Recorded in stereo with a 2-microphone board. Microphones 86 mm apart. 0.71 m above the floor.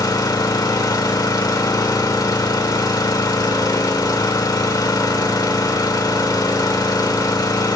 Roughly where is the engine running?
Left.